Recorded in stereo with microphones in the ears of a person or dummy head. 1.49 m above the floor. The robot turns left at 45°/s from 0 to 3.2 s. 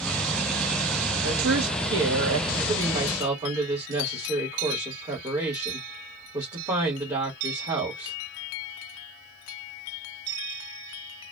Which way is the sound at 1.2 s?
75° right.